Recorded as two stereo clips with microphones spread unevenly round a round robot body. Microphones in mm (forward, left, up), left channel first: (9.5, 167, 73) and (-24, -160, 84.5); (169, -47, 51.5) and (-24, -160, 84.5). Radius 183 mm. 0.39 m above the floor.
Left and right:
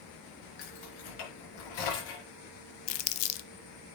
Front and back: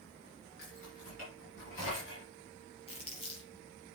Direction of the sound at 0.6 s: 90° left.